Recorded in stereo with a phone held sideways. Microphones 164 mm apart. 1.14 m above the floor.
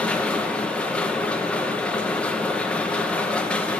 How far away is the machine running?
About 0.9 m.